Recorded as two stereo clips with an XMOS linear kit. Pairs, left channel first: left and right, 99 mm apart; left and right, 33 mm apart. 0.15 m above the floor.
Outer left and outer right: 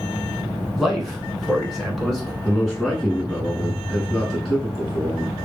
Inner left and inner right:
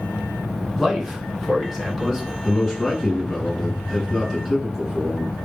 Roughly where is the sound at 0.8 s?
Centre.